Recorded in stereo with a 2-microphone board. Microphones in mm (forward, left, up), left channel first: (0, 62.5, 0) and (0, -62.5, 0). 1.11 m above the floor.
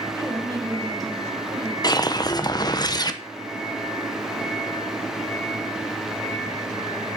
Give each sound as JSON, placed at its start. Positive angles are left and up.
{"t": 0.1, "sound": "a woman speaking", "side_deg": -25, "distance_m": 5.5}
{"t": 1.8, "sound": "a whoosh", "side_deg": 30, "distance_m": 0.8}